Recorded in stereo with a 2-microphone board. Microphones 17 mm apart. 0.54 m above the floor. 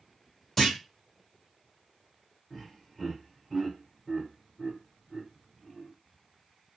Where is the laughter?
Centre (ahead or behind), 1.5 m.